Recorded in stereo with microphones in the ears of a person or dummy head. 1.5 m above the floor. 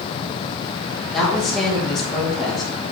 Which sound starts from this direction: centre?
A woman speaking, at 1.1 s.